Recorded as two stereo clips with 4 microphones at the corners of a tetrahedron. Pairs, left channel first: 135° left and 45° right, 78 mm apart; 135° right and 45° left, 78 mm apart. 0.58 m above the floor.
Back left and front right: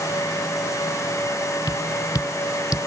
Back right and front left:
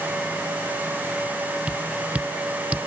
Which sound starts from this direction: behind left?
Tapping, at 1.7 s.